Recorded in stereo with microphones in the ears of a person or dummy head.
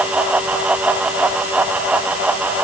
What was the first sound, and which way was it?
Only background noise.